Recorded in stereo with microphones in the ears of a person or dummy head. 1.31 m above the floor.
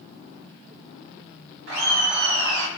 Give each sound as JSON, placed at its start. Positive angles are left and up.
{"t": 1.7, "sound": "laughter", "side_deg": -70, "distance_m": 1.0}